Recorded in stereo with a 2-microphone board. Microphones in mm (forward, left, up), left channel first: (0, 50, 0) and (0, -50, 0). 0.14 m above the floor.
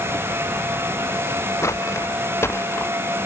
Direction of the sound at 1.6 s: 30° left (ahead or behind).